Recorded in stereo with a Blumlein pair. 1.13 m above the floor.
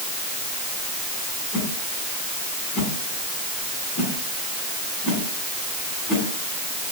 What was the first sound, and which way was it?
A whoosh, 25° left.